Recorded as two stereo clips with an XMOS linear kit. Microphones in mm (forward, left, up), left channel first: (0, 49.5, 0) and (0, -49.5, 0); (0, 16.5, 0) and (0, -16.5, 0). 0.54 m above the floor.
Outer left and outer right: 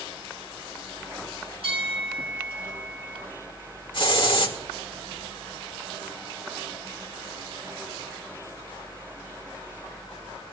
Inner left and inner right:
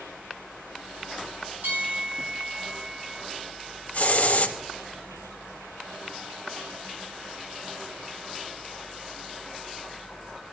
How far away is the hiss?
About 1.7 m.